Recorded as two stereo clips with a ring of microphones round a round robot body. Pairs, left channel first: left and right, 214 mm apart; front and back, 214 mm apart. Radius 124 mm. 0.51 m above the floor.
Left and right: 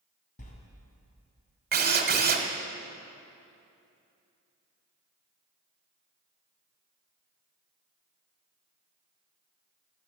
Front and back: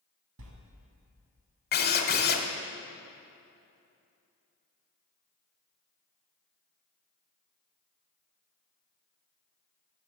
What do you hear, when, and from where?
0.4 s a sliding door: 150° left, 1.5 m
1.7 s a drill: 45° right, 1.2 m